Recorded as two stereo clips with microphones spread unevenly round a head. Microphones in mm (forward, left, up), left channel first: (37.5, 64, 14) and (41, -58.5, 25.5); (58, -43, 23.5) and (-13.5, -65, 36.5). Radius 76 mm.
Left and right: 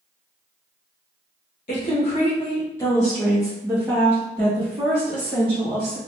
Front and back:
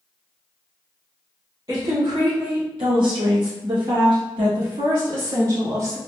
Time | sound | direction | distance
1.7 | a woman speaking | 135° left | 1.1 m